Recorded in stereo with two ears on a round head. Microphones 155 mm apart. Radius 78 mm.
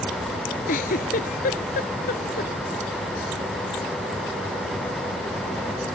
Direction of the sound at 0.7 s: 50° left (ahead or behind).